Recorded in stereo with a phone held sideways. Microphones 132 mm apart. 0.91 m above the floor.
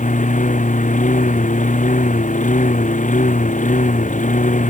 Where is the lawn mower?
70° left (ahead or behind).